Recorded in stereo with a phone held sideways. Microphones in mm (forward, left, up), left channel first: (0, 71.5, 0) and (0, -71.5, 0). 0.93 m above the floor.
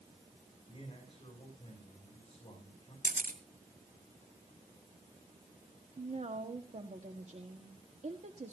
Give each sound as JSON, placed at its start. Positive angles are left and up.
{"t": 0.7, "sound": "a man speaking", "side_deg": 35, "distance_m": 8.5}
{"t": 3.0, "sound": "a camera shutter", "side_deg": -80, "distance_m": 3.0}
{"t": 6.0, "sound": "a woman speaking", "side_deg": -55, "distance_m": 1.6}